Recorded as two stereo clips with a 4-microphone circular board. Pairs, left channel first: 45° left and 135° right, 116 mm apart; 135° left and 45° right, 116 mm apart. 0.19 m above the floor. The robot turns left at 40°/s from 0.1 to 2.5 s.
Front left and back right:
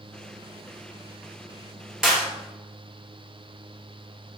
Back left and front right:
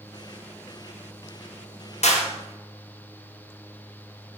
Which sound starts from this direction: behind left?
A clap, at 2.0 s.